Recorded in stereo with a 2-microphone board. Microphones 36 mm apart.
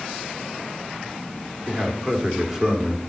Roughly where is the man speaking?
Centre.